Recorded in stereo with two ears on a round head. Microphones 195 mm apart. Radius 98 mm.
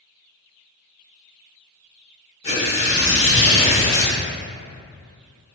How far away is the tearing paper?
About 1.2 m.